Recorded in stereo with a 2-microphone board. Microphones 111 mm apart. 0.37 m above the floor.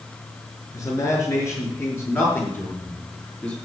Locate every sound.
0.7 s a man speaking: 30° left (ahead or behind), 5 m; by 3.5 s 15° left (ahead or behind), 6 m